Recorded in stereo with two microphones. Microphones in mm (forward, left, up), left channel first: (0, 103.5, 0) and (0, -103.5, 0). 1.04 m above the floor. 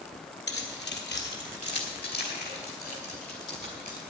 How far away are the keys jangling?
About 1.8 m.